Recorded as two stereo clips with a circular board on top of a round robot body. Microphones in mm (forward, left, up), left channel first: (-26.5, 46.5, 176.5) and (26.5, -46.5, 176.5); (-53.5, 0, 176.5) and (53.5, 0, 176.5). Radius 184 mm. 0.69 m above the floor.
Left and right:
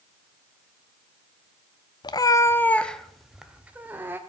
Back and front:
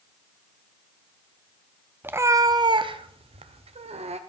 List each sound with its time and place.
2.0 s a cat meowing: 70° left, 0.7 m; by 4.2 s 10° left, 1.2 m